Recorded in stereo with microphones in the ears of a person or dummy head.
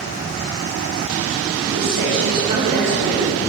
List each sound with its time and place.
1.6 s a man speaking: 55° right (ahead or behind), 2 m; by 3.3 s 40° right (ahead or behind), 3 m